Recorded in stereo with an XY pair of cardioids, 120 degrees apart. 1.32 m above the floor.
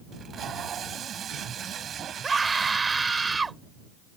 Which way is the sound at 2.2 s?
25° right.